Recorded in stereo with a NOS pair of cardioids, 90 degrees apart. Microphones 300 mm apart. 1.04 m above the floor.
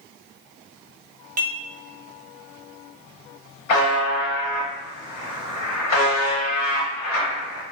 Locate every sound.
1.4 s dishes clattering: 30° right, 0.5 m
3.7 s a buzzer: 65° left, 1.0 m